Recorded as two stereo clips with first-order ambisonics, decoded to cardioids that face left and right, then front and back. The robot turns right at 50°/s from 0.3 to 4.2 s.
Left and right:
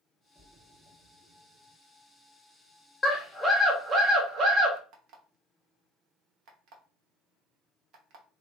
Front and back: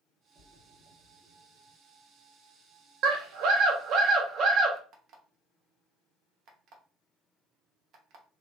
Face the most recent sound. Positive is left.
turn(degrees=-135)